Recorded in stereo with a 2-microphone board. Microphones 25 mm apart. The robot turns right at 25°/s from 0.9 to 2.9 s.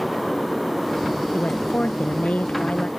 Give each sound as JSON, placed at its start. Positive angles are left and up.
{"t": 1.3, "sound": "a woman speaking", "azimuth_deg": 80}